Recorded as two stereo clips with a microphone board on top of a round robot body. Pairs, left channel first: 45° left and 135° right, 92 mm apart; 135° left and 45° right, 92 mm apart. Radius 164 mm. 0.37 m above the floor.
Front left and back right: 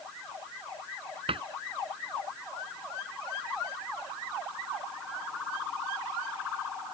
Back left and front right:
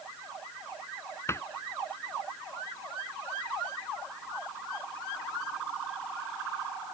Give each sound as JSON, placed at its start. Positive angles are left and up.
{"t": 1.3, "sound": "a cupboard door", "azimuth_deg": -160}